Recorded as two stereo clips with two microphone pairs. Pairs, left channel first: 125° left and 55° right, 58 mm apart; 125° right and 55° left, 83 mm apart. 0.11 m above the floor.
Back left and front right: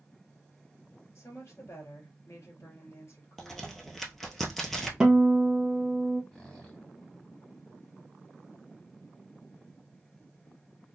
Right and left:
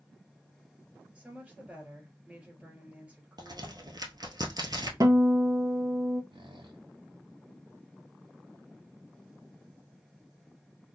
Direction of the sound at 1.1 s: 125° left.